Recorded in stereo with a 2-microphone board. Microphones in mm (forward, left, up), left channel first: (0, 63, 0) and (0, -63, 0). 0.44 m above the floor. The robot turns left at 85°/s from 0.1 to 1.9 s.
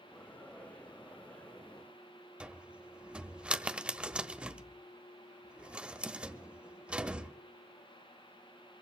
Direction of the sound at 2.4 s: 10° right (ahead or behind).